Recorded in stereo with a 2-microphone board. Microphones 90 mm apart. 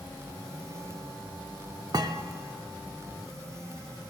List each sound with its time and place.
1.9 s a thud: 45° right (ahead or behind), 0.5 m